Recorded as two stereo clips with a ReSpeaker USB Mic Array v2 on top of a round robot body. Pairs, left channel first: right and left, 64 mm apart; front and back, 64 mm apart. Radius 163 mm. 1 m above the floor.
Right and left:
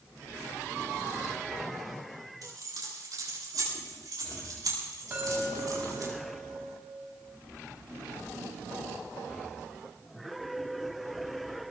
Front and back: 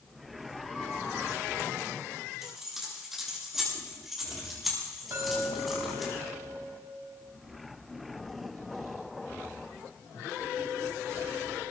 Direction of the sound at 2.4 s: 95° left.